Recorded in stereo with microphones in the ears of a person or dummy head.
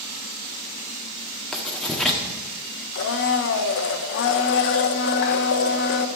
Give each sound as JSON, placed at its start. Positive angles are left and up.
{"t": 1.5, "sound": "writing", "side_deg": 0, "distance_m": 1.5}
{"t": 3.0, "sound": "a blender", "side_deg": 55, "distance_m": 0.8}